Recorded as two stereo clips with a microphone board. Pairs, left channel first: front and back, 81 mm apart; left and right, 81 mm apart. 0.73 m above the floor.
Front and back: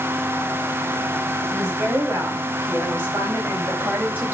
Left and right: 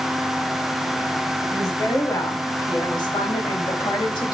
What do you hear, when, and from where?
1.5 s a woman speaking: 125° left, 5.5 m; by 4.3 s 110° left, 4.5 m